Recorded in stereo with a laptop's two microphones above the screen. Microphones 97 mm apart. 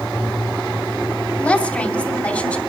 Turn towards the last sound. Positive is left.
turn(degrees=15)  # may be behind; listen again after turning